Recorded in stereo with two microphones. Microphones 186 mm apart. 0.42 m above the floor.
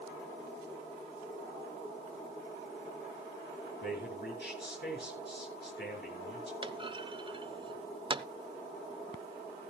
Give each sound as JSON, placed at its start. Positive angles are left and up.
{"t": 3.8, "sound": "a man speaking", "side_deg": 65, "distance_m": 6.5}
{"t": 6.6, "sound": "a clunk", "side_deg": -25, "distance_m": 0.5}